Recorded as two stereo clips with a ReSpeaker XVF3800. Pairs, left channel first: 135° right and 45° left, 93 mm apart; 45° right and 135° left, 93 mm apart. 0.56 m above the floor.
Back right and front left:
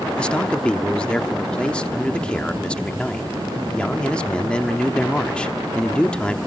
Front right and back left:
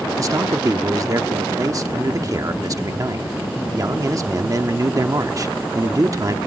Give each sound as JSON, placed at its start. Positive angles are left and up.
{"t": 0.2, "sound": "a man speaking", "azimuth_deg": 150, "distance_m": 1.1}